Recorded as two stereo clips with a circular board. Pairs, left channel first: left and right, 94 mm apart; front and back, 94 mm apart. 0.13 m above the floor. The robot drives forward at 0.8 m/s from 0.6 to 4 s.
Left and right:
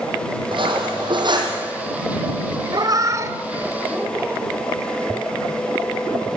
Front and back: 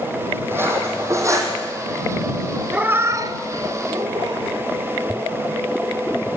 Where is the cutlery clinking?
115° right, 3.5 m; by 1.6 s 125° right, 4 m.